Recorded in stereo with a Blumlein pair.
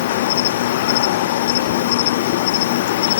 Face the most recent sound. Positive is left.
turn(degrees=55)